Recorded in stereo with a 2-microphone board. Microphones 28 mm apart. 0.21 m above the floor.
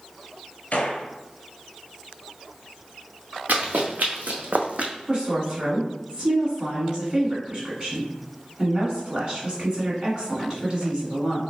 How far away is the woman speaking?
About 1.8 m.